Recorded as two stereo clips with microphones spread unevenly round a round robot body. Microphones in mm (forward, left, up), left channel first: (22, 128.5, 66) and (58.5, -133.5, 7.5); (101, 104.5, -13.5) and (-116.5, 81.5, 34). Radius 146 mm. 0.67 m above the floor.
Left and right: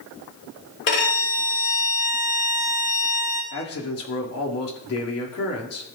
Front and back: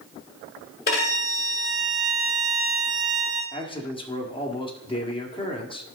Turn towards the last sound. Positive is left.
turn(degrees=65)